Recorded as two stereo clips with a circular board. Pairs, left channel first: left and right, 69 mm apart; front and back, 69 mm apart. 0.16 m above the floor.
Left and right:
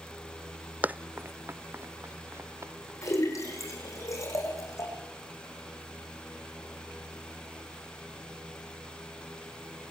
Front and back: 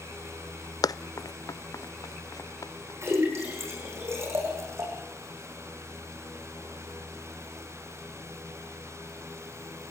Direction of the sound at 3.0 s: 130° left.